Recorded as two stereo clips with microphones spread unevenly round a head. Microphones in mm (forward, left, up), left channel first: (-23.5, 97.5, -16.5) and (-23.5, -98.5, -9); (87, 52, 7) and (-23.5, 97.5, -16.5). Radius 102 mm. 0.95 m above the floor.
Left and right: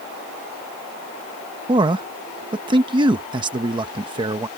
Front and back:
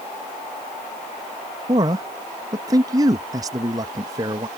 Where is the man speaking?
155° right.